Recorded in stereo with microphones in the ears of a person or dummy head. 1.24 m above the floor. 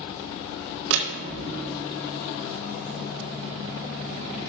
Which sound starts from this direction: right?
A door slam, at 0.9 s.